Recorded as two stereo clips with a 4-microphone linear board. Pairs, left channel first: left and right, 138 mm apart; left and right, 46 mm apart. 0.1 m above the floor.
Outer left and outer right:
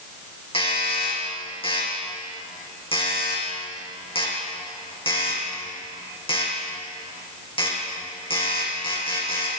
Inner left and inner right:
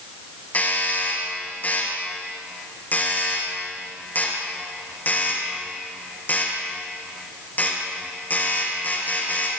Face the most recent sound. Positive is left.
turn(degrees=40)  # may be behind; listen again after turning